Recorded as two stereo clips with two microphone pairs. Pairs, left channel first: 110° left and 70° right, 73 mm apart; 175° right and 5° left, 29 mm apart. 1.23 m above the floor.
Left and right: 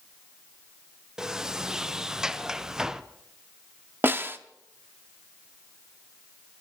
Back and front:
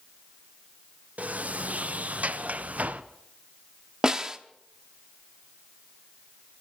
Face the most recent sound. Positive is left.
turn(degrees=-40)